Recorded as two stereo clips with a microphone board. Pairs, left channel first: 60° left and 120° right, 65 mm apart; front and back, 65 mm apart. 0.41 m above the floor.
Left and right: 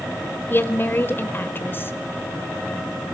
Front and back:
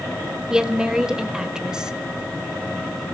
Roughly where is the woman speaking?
Left.